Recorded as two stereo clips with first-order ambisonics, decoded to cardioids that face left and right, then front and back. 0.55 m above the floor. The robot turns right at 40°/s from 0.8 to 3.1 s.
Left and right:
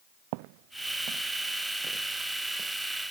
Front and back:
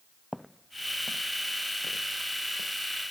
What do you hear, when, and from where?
0.3 s footsteps: 90° right; by 2.7 s 10° right